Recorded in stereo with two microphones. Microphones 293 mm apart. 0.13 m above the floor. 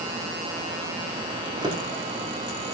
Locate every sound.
1.4 s a drawer: 15° right (ahead or behind), 4 m